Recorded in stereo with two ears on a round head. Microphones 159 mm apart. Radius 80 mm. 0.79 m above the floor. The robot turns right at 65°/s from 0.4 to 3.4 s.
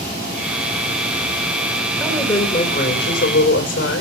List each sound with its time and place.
2.0 s a woman speaking: 5° left, 3.5 m; by 4.0 s 95° left, 3.5 m